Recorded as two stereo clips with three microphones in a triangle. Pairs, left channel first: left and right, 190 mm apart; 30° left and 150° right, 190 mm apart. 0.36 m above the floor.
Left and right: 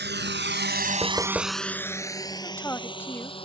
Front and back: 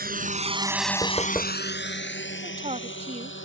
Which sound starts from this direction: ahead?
Knocking, at 1.0 s.